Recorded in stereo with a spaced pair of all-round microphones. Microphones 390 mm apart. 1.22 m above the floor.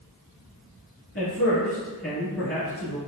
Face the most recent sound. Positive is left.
turn(degrees=35)  # may be behind; listen again after turning